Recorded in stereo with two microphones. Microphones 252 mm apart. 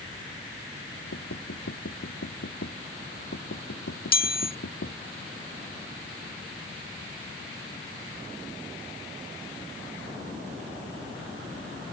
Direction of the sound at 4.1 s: 40° left (ahead or behind).